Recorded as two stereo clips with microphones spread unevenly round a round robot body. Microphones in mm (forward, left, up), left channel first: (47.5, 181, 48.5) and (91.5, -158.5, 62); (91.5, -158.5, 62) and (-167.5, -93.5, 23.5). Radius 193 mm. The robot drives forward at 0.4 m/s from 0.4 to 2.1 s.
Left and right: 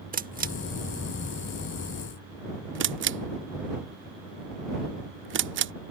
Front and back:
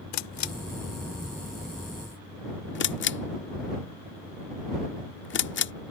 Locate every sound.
0.1 s a camera shutter: 15° right; by 5.7 s 45° right